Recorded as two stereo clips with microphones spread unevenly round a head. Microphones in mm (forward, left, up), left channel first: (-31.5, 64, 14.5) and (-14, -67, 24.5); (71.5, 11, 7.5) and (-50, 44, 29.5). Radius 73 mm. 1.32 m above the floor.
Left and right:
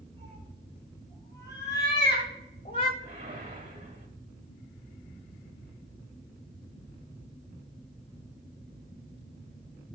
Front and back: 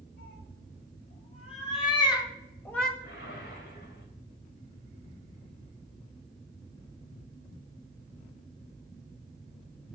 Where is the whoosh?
40° right, 2 m.